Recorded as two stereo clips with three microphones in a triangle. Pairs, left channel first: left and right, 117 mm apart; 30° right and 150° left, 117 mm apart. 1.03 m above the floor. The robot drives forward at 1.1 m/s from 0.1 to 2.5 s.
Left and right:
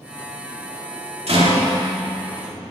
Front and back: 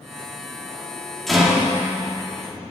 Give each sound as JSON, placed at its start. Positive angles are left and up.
{"t": 1.3, "sound": "a rattle", "azimuth_deg": -115, "distance_m": 2.0}